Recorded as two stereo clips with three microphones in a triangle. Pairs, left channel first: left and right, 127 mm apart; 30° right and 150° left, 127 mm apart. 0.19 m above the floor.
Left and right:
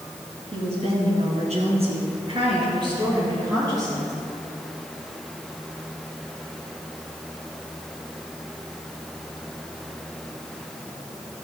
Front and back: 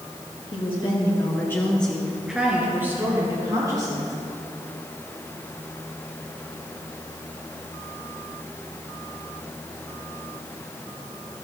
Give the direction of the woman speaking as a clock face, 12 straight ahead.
2 o'clock.